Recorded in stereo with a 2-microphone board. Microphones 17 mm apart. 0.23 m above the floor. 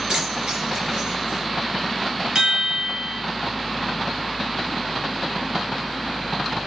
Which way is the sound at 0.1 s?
70° right (ahead or behind).